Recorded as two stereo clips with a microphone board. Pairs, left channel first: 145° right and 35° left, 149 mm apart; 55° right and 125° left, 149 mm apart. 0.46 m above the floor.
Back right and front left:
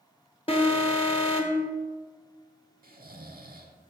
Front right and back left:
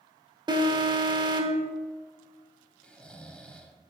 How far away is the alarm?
About 1.1 m.